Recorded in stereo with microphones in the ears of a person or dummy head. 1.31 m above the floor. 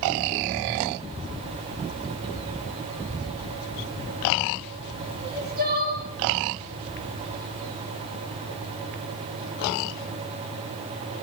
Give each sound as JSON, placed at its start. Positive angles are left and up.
{"t": 5.2, "sound": "crying", "side_deg": -50, "distance_m": 10.0}